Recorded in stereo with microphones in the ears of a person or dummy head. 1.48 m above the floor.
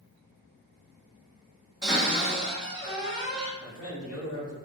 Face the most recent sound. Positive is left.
turn(degrees=75)  # may be behind; listen again after turning